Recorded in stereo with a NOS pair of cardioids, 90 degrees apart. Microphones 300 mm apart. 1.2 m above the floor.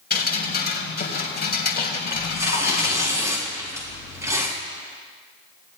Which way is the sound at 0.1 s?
35° left.